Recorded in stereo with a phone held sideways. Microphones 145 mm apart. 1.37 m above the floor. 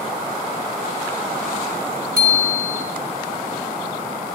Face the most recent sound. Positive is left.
turn(degrees=-80)